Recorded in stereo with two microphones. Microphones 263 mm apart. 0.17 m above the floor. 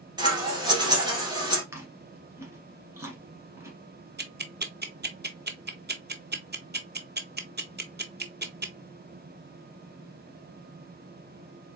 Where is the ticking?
40° right (ahead or behind), 0.7 m.